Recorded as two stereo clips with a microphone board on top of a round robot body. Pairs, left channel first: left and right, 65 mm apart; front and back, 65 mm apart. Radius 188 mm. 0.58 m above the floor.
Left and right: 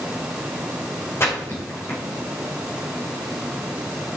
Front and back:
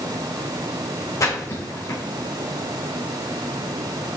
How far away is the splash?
About 3.5 m.